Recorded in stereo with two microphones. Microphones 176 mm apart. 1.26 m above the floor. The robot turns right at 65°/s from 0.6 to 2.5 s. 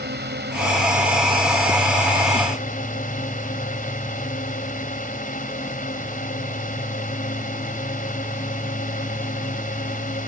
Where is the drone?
75° right; by 10.3 s 50° left.